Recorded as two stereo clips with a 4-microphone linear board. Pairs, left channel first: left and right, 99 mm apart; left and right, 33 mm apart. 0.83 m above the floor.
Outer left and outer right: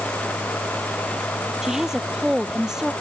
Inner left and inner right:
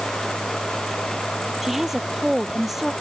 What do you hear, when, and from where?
1.6 s a woman speaking: 5° right (ahead or behind)